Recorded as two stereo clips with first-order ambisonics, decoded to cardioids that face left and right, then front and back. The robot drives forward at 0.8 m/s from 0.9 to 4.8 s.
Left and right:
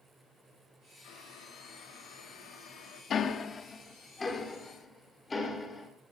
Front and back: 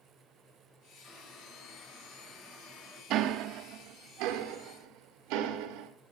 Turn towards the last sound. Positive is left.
turn(degrees=165)